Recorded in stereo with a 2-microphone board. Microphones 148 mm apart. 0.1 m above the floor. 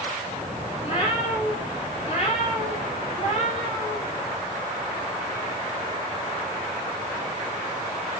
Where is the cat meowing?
40° left (ahead or behind), 9 m; by 4.0 s 45° left (ahead or behind), 10.5 m.